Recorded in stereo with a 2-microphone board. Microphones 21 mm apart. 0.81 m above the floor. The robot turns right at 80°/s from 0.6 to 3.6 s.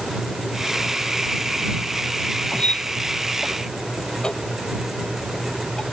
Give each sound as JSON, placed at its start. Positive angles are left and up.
{"t": 2.5, "sound": "a squeak", "side_deg": 60}